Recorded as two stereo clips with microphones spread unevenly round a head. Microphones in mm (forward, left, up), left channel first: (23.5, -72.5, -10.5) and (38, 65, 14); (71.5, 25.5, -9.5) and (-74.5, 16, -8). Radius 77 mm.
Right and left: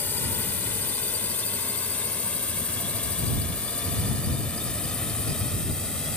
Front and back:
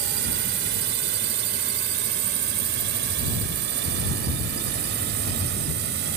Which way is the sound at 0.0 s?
175° right.